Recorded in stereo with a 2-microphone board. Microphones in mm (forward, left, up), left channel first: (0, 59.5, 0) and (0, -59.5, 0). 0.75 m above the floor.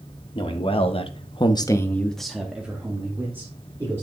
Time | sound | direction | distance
0.3 | a man speaking | 45° left (ahead or behind) | 1.5 m